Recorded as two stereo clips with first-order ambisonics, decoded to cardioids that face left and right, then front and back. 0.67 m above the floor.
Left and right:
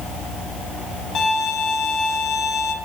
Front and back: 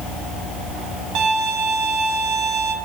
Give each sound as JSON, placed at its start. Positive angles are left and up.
{"t": 1.1, "sound": "a violin", "azimuth_deg": 145, "distance_m": 1.2}